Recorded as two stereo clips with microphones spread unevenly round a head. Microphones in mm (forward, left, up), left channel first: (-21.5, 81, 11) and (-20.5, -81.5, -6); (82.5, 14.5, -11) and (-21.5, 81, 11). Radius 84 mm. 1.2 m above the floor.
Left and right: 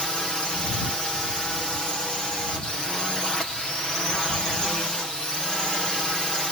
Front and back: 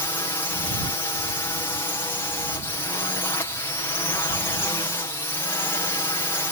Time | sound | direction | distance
0.0 | a drone | straight ahead | ?